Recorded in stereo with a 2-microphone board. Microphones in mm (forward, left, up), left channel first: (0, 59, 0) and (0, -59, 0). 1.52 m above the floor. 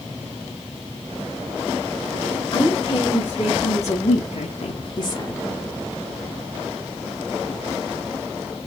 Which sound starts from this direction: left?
A woman speaking, at 2.5 s.